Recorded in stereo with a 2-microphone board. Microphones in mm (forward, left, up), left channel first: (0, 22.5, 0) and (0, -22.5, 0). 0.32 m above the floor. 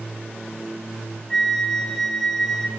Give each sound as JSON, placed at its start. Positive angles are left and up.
{"t": 1.3, "sound": "a flute", "side_deg": 10, "distance_m": 1.5}